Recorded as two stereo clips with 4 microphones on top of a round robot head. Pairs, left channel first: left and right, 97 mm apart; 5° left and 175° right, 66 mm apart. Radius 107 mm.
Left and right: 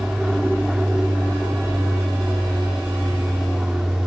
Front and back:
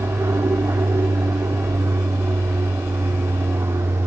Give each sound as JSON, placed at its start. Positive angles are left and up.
{"t": 0.0, "sound": "an aircraft", "azimuth_deg": -175}